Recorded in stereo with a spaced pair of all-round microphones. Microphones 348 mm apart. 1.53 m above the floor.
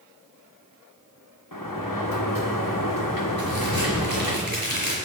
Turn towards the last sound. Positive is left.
turn(degrees=-80)